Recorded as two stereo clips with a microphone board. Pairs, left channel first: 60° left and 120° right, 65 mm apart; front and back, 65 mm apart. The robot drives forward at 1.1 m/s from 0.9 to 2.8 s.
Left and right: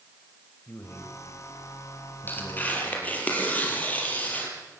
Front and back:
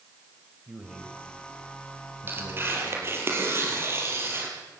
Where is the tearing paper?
120° left, 4 m; by 4.5 s 125° left, 4 m.